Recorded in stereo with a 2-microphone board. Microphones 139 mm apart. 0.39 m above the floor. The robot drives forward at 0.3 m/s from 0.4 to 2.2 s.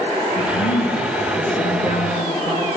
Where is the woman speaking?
45° left (ahead or behind), 6.5 m.